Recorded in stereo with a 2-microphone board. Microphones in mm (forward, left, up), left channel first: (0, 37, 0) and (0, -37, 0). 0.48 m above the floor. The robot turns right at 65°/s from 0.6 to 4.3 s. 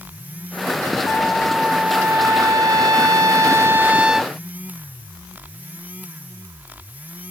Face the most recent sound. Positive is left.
turn(degrees=0)